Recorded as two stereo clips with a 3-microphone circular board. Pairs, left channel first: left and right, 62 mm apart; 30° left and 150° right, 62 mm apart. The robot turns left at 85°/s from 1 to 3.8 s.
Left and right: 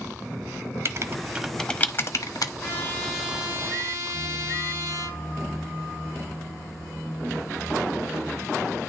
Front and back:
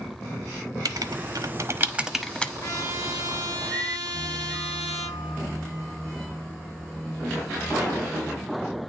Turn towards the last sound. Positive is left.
turn(degrees=-50)